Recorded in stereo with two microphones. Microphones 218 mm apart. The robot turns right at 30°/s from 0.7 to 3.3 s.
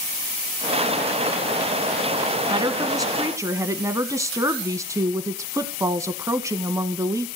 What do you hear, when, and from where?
2.5 s a woman speaking: 20° right (ahead or behind), 1.2 m; by 7.3 s 15° right (ahead or behind), 1.2 m